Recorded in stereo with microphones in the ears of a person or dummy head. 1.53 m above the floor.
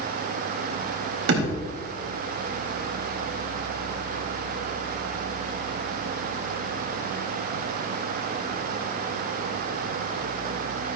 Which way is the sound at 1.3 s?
75° right (ahead or behind).